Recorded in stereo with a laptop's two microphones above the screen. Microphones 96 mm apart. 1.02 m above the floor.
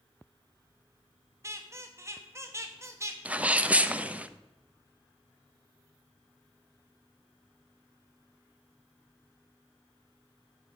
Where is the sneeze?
15° right (ahead or behind), 0.6 m.